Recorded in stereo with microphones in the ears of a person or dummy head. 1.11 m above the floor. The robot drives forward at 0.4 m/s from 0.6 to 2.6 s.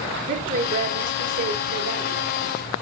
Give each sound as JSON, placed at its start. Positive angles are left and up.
{"t": 0.3, "sound": "a woman speaking", "side_deg": -65, "distance_m": 3.5}